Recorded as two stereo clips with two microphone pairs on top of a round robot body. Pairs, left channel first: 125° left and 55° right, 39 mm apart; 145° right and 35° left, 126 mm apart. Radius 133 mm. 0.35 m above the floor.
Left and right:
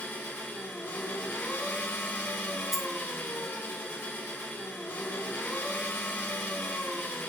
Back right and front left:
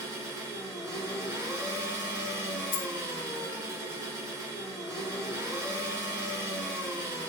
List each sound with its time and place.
0.0 s an engine running: 105° left, 1.2 m
2.7 s a dropped coin: 145° right, 0.6 m